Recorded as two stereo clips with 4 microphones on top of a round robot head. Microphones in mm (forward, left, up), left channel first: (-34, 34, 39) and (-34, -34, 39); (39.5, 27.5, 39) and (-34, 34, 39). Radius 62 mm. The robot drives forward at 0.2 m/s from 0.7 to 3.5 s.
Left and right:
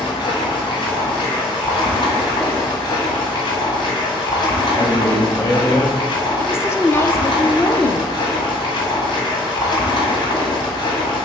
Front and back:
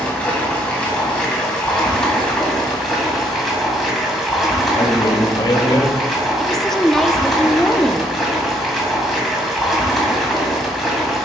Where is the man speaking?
35° left, 1.7 m.